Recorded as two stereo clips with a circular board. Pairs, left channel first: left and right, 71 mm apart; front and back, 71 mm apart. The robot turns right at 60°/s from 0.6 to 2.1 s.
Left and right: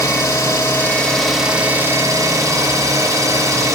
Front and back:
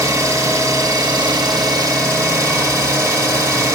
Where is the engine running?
135° left, 1.2 m; by 3.8 s 135° right, 1.2 m.